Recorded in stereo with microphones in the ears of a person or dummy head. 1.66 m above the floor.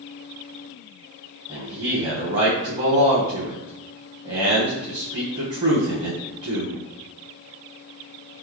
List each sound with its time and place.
1.5 s a man speaking: 35° right (ahead or behind), 1.0 m